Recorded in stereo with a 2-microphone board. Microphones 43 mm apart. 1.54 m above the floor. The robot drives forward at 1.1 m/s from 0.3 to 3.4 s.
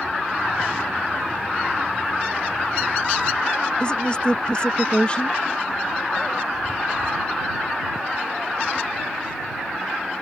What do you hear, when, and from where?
3.8 s a woman speaking: 25° left (ahead or behind)